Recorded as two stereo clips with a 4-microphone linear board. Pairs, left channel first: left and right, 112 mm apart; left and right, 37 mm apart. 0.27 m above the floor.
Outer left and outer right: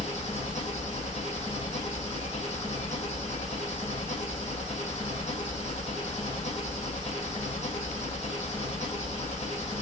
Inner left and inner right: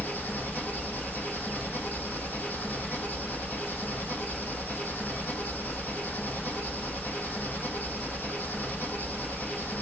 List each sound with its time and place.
0.0 s an engine running: 75° left (ahead or behind), 4 m